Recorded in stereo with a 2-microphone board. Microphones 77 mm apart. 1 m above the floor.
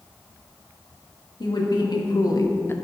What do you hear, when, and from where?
1.4 s a woman speaking: 70° left (ahead or behind), 2.0 m; by 2.8 s 25° left (ahead or behind), 0.7 m